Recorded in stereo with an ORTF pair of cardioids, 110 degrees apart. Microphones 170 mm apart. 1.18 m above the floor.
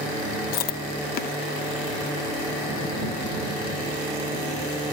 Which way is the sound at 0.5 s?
60° left.